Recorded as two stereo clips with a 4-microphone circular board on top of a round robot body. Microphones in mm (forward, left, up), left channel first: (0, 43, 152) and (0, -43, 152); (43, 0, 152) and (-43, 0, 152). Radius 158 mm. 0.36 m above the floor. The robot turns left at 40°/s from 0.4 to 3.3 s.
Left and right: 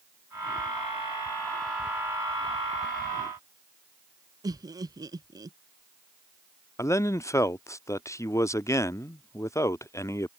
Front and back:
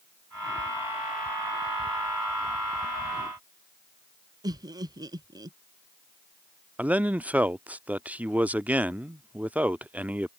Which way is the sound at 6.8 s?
120° left.